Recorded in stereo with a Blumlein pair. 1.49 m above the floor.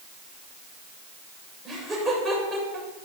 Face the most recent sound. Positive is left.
turn(degrees=-5)